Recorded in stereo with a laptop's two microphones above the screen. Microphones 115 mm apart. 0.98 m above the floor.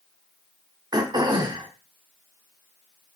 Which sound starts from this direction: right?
Throat clearing, at 0.9 s.